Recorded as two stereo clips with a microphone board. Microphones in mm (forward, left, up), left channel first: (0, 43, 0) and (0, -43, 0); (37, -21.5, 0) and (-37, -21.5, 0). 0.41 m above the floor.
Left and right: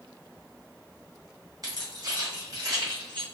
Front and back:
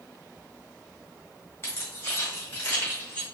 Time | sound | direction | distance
1.6 | keys jangling | 55° right | 1.6 m